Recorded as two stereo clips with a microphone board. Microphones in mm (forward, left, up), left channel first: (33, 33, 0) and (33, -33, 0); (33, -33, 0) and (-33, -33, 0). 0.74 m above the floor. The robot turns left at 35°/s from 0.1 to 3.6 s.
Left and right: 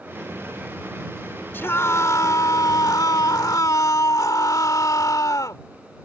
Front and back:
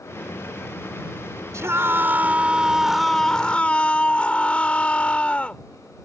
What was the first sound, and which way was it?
A scream, 145° left.